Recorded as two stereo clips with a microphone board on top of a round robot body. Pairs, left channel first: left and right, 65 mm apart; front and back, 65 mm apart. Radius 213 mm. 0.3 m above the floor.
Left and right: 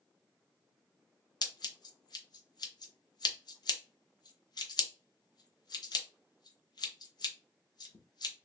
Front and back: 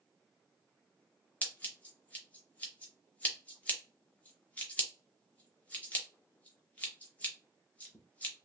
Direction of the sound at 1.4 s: 70° left.